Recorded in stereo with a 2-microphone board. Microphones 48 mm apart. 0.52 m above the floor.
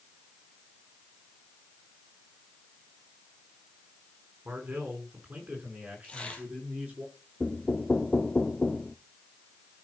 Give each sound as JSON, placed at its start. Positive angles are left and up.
{"t": 4.5, "sound": "a man speaking", "side_deg": -35, "distance_m": 5.5}
{"t": 6.0, "sound": "tearing paper", "side_deg": 25, "distance_m": 3.0}
{"t": 7.4, "sound": "knocking", "side_deg": 25, "distance_m": 0.6}